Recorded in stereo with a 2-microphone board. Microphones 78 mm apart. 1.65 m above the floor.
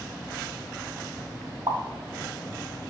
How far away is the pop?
About 1.0 m.